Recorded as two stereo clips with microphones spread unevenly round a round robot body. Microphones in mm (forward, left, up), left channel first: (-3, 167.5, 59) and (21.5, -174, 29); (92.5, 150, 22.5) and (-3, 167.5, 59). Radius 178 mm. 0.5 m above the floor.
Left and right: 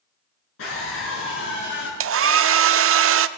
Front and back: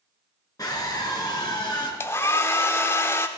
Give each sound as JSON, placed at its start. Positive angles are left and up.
{"t": 0.6, "sound": "a scream", "azimuth_deg": 40, "distance_m": 8.5}
{"t": 2.0, "sound": "a hair dryer", "azimuth_deg": -50, "distance_m": 0.6}